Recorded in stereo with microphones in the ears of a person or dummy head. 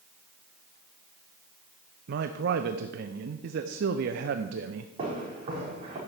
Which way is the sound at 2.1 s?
60° right (ahead or behind).